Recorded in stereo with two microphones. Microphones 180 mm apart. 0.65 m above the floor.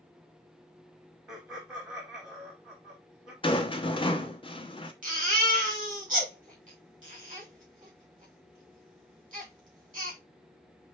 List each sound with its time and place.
1.3 s laughter: 20° right (ahead or behind), 1.3 m
3.4 s a rattle: 30° left (ahead or behind), 0.6 m
5.0 s a baby crying: 50° right (ahead or behind), 2 m